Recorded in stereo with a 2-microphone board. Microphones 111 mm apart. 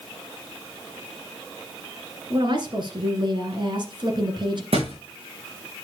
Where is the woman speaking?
50° right (ahead or behind), 2 m.